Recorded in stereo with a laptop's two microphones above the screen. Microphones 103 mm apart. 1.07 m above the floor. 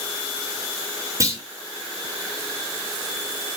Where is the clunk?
30° right (ahead or behind), 2.5 m.